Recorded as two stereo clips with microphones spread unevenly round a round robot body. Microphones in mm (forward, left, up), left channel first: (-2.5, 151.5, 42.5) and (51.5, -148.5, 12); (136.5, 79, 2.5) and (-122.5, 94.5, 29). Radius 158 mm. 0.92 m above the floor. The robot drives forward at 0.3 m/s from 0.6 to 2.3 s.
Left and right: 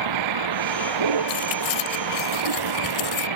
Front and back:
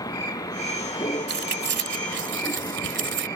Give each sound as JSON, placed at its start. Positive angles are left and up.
{"t": 0.0, "sound": "a vehicle", "azimuth_deg": -85}
{"t": 1.3, "sound": "keys jangling", "azimuth_deg": 125}